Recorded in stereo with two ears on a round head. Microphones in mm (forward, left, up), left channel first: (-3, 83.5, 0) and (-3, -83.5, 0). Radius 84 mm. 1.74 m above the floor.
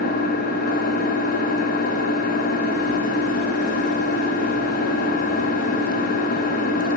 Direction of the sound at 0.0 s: 50° left (ahead or behind).